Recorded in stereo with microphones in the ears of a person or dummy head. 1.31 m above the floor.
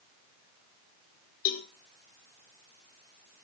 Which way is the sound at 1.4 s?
50° left (ahead or behind).